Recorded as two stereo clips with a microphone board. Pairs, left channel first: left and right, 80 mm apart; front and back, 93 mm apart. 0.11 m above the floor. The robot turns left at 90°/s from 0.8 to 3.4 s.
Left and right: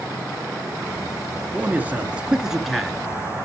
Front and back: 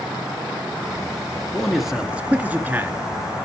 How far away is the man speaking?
About 1.5 m.